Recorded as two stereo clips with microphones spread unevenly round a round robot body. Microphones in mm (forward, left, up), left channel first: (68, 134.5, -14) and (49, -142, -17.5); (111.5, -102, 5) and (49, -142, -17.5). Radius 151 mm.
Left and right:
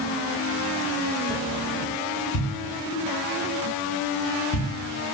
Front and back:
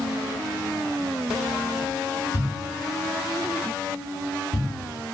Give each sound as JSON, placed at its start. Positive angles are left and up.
{"t": 2.3, "sound": "a thud", "azimuth_deg": 35, "distance_m": 1.6}